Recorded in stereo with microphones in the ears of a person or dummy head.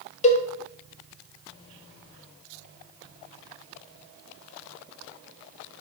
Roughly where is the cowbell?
Left.